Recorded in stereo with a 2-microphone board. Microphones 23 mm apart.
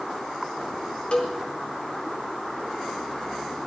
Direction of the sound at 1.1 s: 45° left (ahead or behind).